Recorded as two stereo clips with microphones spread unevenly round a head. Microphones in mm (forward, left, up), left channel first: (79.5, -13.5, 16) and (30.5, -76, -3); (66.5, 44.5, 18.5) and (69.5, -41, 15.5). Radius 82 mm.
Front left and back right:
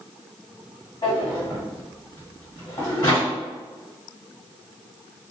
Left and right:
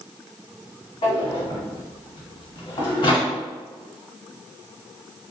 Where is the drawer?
80° left, 1.5 m.